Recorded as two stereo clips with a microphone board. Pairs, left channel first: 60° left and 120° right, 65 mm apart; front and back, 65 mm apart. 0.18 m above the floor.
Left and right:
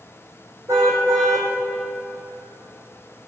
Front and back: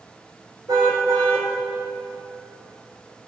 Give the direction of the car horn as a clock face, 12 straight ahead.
5 o'clock.